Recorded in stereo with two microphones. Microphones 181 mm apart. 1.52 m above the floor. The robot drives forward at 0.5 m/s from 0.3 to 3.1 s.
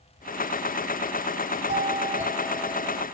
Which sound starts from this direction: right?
A doorbell, at 1.7 s.